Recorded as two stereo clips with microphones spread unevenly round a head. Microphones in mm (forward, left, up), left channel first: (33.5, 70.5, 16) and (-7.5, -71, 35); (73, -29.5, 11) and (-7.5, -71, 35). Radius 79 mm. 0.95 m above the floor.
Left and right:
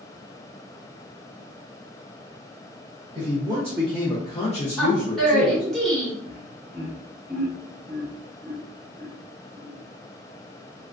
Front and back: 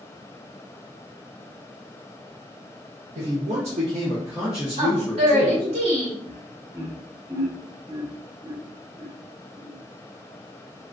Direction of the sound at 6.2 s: 120° left.